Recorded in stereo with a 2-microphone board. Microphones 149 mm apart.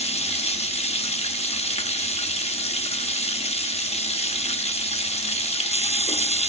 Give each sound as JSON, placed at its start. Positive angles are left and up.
{"t": 0.0, "sound": "running water", "side_deg": 45, "distance_m": 0.8}